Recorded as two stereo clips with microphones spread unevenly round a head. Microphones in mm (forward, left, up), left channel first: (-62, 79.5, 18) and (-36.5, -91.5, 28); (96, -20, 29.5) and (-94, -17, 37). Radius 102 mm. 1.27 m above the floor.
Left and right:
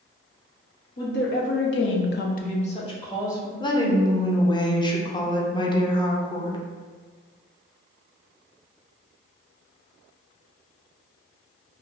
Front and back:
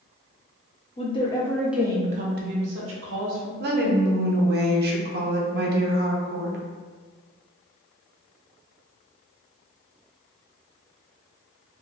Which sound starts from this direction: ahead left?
A woman speaking, at 1.0 s.